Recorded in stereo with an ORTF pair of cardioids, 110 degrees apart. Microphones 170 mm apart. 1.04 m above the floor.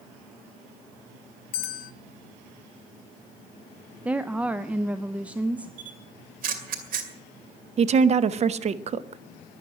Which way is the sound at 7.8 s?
40° right.